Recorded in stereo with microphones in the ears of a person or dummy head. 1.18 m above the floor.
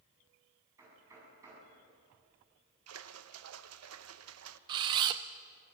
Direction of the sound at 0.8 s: 15° right (ahead or behind).